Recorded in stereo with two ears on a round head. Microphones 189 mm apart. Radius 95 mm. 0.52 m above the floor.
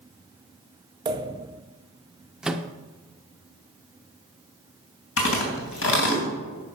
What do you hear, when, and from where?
1.1 s a pop: 20° right (ahead or behind), 0.5 m
2.4 s a microwave: 5° right (ahead or behind), 0.6 m
5.2 s chewing: 65° left (ahead or behind), 2.5 m